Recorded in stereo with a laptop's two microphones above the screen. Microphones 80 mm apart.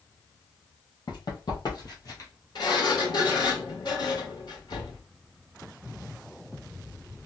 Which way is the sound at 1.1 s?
60° left (ahead or behind).